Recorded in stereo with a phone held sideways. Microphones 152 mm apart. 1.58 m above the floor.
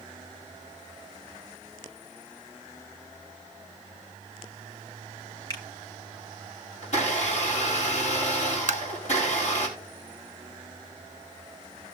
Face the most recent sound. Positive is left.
turn(degrees=-55)  # may be behind; listen again after turning